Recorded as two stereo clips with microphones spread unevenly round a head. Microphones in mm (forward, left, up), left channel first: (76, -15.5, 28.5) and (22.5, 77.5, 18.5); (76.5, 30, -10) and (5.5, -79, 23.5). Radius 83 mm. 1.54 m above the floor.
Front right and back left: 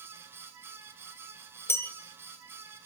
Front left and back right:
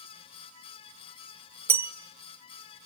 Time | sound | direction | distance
1.7 | a bell | 105° right | 1.3 m